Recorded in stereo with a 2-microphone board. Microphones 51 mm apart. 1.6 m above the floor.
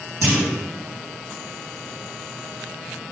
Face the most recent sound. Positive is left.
turn(degrees=-80)